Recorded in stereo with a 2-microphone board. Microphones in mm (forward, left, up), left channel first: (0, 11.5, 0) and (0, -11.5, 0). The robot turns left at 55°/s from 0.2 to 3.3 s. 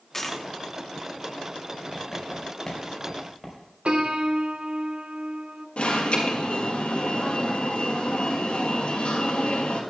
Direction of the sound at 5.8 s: 70° left (ahead or behind).